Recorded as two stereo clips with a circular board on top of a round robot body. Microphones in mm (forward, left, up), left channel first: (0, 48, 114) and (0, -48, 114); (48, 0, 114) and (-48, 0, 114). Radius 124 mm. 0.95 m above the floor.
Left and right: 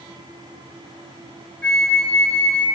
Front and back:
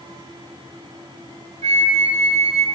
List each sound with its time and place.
1.6 s a flute: 170° left, 0.8 m